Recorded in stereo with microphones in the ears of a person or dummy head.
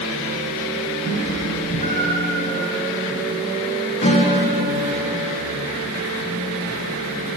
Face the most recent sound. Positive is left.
turn(degrees=35)  # may be behind; listen again after turning